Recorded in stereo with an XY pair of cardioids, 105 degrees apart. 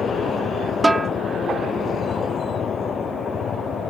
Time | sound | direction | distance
0.8 | a snare drum | 15° right | ?